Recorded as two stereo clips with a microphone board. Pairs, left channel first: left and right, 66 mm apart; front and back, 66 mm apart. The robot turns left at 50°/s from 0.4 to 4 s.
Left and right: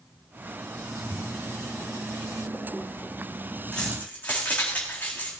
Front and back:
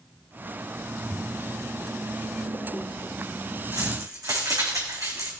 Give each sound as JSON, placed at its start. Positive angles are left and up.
{"t": 1.0, "sound": "a splash", "azimuth_deg": 85, "distance_m": 1.6}
{"t": 3.7, "sound": "keys jangling", "azimuth_deg": 170, "distance_m": 4.0}